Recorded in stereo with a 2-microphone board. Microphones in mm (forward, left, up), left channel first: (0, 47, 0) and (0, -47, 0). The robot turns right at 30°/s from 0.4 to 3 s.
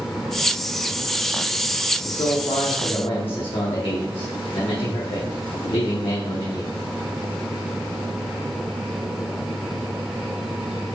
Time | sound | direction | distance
2.0 | a man speaking | 75° left (ahead or behind) | 0.9 m